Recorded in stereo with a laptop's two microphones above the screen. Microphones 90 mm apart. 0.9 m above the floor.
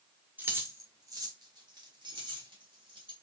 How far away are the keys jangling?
About 0.9 m.